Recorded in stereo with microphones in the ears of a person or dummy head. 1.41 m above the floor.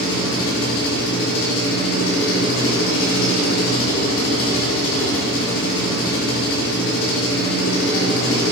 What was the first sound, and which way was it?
An engine running, 85° left.